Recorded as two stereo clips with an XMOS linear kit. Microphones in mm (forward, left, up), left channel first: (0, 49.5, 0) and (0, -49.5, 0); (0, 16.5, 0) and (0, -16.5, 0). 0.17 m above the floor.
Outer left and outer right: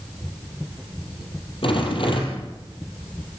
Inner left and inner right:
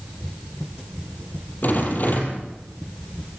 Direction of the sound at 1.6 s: 60° left (ahead or behind).